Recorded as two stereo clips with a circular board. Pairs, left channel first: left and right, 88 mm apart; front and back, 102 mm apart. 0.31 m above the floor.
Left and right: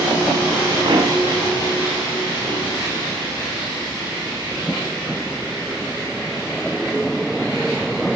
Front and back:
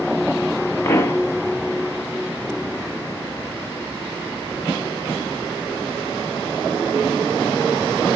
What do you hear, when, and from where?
0.8 s a pop: 65° right, 0.9 m